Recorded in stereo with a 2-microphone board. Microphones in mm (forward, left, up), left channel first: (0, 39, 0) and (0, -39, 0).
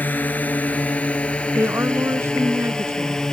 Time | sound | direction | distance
0.0 | a drone | 20° left (ahead or behind) | ?
1.6 | a woman speaking | 35° right (ahead or behind) | ?